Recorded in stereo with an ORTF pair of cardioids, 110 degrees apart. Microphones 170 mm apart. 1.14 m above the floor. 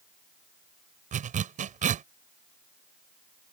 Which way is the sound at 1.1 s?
50° right.